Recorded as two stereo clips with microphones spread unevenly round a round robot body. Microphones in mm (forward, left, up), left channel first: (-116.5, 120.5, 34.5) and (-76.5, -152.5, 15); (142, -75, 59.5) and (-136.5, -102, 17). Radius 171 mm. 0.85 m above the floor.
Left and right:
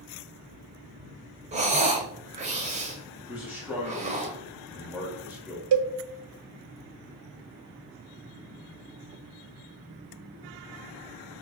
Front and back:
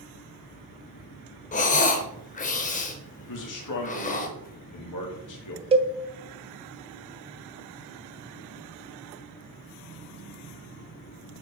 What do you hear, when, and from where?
1.5 s breathing: 20° right, 0.6 m
3.3 s a man speaking: straight ahead, 1.6 m
5.7 s a cowbell: 100° right, 0.5 m